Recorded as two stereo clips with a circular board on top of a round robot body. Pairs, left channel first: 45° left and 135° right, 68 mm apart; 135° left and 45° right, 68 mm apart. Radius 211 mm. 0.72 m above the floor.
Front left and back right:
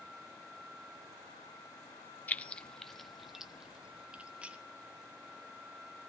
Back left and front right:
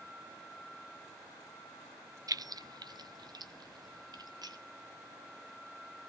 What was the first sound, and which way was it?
Keys jangling, 20° right.